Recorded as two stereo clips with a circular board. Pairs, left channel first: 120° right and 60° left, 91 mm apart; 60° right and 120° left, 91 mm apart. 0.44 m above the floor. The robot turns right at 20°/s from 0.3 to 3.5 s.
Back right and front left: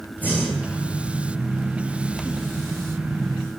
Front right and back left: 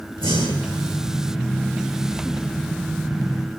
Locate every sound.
0.2 s breathing: 135° left, 9.5 m; by 0.8 s 145° left, 9.5 m